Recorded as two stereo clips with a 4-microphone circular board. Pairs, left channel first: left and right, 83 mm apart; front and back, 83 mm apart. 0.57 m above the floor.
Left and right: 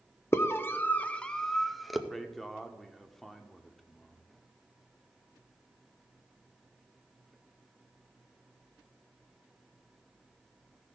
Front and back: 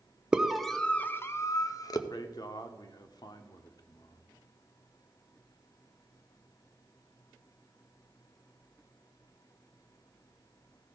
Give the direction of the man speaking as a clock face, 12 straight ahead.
12 o'clock.